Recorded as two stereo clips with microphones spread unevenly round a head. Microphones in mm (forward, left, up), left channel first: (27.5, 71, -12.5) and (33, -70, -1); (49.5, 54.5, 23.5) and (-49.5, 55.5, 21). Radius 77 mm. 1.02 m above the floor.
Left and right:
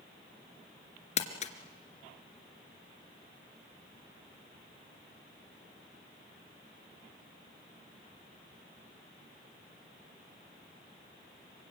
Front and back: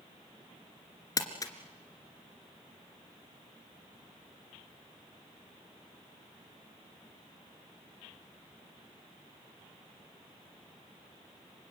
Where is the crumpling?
50° left, 2.5 m.